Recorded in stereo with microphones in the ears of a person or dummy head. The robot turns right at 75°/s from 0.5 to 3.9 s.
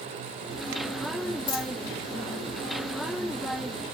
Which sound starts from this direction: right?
A dropped coin, at 1.5 s.